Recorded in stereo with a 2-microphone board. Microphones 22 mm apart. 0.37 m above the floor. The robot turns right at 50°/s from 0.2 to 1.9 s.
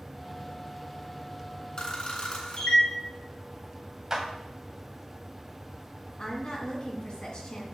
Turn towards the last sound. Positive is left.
turn(degrees=50)  # may be behind; listen again after turning